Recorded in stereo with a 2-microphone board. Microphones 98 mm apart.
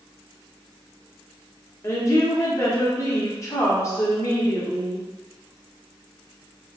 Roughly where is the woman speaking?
Left.